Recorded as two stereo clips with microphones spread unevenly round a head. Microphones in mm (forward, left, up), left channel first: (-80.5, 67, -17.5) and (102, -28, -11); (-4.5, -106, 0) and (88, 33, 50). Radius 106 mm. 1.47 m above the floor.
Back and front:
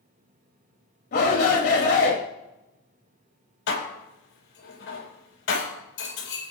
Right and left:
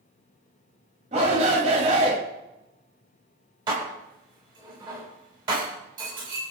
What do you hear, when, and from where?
1.1 s a shout: 115° left, 2.5 m
3.7 s dishes clattering: 125° left, 5 m